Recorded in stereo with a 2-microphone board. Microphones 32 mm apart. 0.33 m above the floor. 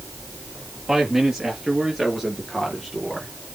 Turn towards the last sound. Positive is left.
turn(degrees=5)  # may be behind; listen again after turning